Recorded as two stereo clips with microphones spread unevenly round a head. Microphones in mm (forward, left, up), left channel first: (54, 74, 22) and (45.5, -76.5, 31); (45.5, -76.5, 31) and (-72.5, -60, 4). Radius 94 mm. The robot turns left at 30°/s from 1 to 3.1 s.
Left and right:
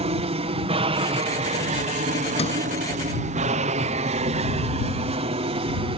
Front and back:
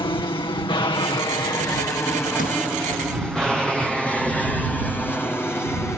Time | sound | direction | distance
0.0 | an aircraft | 55° right | ?
2.4 | a sliding door | 40° left | ?